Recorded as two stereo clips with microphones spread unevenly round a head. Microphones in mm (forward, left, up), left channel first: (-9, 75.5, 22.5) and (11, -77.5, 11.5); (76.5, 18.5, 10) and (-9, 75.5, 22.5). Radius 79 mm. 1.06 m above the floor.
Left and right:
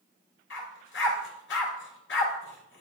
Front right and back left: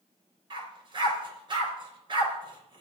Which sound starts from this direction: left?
A dog barking, at 0.5 s.